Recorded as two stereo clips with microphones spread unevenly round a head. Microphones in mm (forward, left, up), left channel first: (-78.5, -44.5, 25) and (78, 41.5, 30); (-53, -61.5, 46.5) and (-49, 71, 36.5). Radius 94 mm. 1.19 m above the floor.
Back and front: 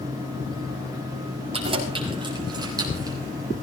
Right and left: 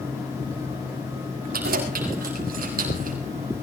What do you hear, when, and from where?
1.5 s keys jangling: 90° left, 6 m; by 3.2 s 100° left, 6 m